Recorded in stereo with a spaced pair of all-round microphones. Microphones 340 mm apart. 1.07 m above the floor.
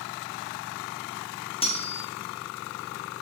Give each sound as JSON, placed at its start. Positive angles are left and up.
{"t": 1.6, "sound": "cutlery clinking", "side_deg": 15, "distance_m": 0.7}